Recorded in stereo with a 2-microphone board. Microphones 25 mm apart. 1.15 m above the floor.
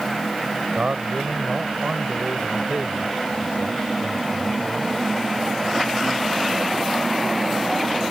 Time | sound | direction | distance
0.8 | a man speaking | 55° right (ahead or behind) | ?